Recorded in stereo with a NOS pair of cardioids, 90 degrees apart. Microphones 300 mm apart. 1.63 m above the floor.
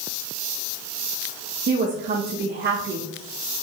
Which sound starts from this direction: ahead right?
A woman speaking, at 1.7 s.